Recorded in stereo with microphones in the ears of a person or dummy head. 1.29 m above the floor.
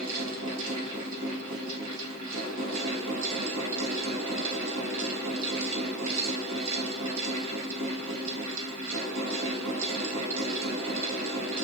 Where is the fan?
80° right, 1.3 m.